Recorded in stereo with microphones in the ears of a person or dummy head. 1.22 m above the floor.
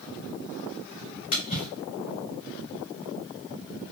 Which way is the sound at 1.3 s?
40° left (ahead or behind).